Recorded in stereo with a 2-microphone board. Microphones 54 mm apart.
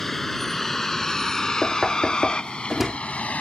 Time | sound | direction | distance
0.0 | a vehicle | 5° left (ahead or behind) | ?
1.6 | knocking | 5° right (ahead or behind) | ?